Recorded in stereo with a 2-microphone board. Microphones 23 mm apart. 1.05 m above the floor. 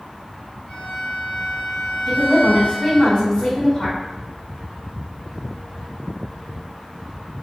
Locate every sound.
0.7 s a violin: 50° left (ahead or behind), 1.3 m
2.1 s a woman speaking: 45° left (ahead or behind), 1.5 m